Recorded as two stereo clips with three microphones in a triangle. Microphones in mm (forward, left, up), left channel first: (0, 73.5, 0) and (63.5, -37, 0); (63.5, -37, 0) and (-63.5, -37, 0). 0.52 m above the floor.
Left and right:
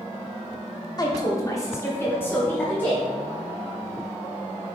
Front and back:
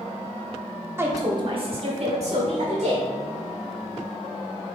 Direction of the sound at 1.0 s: 130° left.